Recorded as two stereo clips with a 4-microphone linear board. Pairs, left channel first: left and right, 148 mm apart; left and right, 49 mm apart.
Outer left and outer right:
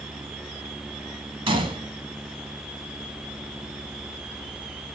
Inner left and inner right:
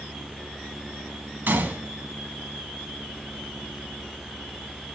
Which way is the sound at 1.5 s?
35° right (ahead or behind).